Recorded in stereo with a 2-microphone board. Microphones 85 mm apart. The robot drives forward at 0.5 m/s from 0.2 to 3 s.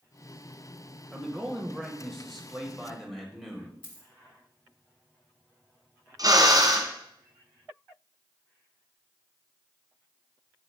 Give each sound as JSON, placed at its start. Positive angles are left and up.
{"t": 1.1, "sound": "a man speaking", "side_deg": 0, "distance_m": 1.0}
{"t": 3.8, "sound": "a dropped coin", "side_deg": 65, "distance_m": 1.2}
{"t": 6.2, "sound": "a drill", "side_deg": -50, "distance_m": 1.5}